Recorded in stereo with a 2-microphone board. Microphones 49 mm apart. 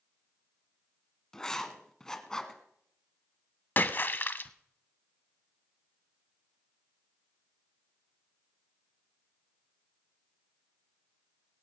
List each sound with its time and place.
1.3 s writing: 15° left (ahead or behind), 1.2 m
3.8 s a splash: 40° left (ahead or behind), 0.5 m